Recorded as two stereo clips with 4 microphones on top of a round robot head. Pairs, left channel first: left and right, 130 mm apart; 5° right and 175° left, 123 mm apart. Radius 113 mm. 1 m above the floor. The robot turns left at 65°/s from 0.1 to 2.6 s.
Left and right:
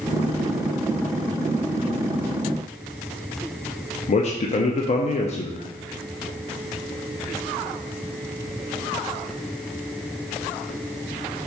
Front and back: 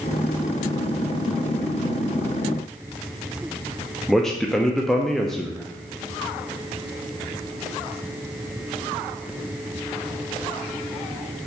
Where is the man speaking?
80° left, 0.6 m.